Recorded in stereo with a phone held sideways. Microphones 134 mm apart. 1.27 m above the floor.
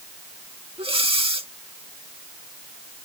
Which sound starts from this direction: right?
Breathing, at 0.8 s.